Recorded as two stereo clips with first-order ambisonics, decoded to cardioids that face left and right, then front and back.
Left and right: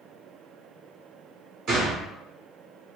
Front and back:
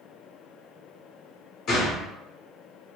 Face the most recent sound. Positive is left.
turn(degrees=-45)